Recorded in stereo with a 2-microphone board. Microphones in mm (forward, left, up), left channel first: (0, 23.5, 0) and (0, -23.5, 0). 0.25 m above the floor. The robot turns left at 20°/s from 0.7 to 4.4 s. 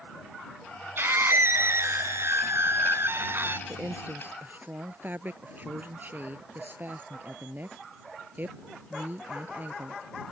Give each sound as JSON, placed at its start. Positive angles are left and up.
{"t": 1.0, "sound": "a scream", "azimuth_deg": -70}
{"t": 3.7, "sound": "a woman speaking", "side_deg": -30}